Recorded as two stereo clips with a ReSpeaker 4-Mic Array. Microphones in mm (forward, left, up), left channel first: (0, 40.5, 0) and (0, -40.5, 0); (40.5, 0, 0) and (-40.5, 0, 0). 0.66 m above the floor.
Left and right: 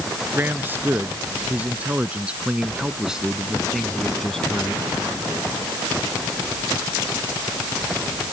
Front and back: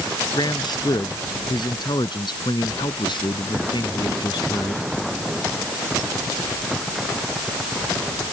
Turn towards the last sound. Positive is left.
turn(degrees=10)